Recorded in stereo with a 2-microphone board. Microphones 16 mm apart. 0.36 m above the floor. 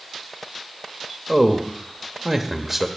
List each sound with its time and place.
1.3 s a man speaking: 20° right (ahead or behind), 0.9 m